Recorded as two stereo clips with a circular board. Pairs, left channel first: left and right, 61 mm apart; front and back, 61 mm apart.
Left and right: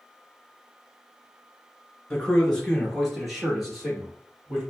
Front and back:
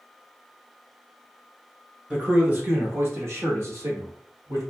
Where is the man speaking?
145° left, 1.1 m; by 4.6 s 170° right, 2 m.